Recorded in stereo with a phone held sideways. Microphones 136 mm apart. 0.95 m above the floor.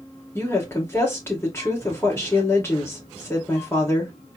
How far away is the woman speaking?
About 2.5 m.